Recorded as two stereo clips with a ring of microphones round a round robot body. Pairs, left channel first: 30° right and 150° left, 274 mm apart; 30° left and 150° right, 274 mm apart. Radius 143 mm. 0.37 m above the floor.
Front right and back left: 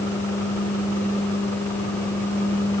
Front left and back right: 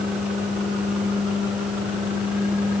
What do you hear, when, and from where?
Only background noise.